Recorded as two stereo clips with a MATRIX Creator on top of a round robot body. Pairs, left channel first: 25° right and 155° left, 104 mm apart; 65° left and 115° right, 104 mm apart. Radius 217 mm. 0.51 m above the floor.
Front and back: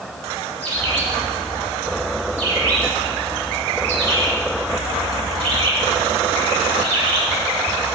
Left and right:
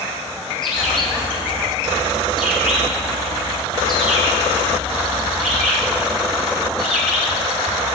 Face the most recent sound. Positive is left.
turn(degrees=155)